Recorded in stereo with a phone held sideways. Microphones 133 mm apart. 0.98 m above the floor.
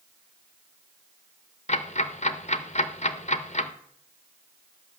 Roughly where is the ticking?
Left.